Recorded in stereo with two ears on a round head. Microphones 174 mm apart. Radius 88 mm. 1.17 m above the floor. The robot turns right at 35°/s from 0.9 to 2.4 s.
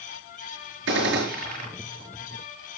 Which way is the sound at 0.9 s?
65° right (ahead or behind).